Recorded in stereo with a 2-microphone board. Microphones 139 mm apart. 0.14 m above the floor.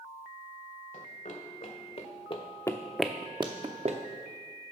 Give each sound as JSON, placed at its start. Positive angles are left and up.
{"t": 0.9, "sound": "running footsteps", "side_deg": 65, "distance_m": 1.5}